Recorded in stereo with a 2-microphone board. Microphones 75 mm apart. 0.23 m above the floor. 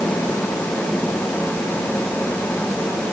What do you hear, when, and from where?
Only background noise.